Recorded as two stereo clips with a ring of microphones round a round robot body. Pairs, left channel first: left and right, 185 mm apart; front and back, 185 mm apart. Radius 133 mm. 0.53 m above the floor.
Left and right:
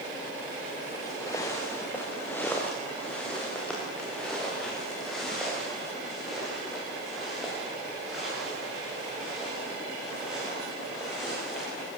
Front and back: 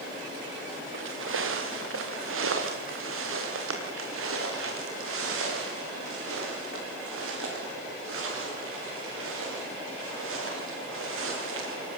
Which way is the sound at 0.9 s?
170° left.